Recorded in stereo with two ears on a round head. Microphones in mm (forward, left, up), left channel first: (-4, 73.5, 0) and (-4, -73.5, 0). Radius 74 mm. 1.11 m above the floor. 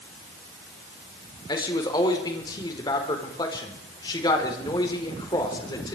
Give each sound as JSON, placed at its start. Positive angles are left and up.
{"t": 1.5, "sound": "a man speaking", "side_deg": 25, "distance_m": 4.5}